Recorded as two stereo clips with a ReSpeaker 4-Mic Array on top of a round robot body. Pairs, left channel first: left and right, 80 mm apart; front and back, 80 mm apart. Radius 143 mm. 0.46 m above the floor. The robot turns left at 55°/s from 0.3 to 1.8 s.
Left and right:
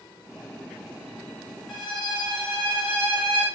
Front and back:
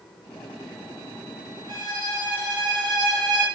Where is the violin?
175° left, 1.8 m; by 3.5 s 170° left, 1.8 m.